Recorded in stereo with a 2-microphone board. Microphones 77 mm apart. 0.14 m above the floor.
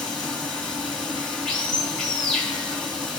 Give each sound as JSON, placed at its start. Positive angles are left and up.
{"t": 0.0, "sound": "running water", "side_deg": 10, "distance_m": 1.9}